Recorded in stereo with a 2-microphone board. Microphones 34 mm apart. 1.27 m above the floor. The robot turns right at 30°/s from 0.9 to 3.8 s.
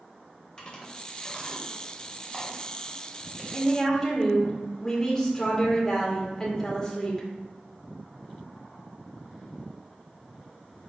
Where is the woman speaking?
15° left (ahead or behind), 1.5 m; by 7.3 s 10° left (ahead or behind), 1.5 m.